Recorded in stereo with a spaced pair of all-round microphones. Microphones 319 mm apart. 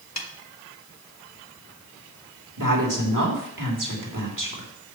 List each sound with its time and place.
0.2 s a snare drum: 55° left (ahead or behind), 1.1 m
2.6 s a woman speaking: 75° right (ahead or behind), 3 m